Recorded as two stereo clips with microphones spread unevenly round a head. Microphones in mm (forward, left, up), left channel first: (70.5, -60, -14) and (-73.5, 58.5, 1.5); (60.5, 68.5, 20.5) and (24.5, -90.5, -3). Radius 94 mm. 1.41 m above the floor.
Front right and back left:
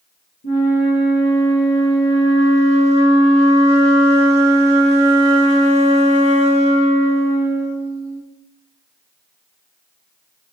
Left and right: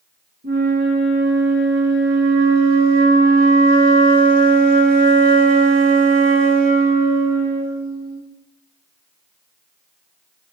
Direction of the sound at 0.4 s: 75° right.